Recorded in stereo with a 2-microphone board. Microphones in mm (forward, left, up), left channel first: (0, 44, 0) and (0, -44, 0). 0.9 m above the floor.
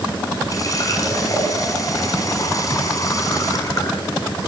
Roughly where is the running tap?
Left.